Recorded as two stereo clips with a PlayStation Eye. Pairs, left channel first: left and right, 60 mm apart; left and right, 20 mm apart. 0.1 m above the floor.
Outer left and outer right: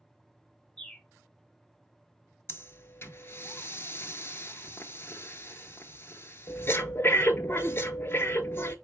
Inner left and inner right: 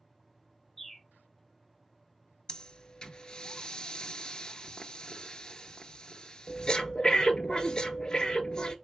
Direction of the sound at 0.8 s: 10° left (ahead or behind).